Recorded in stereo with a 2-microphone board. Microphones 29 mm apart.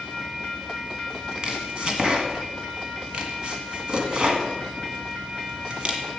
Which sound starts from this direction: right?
Chopping, at 1.4 s.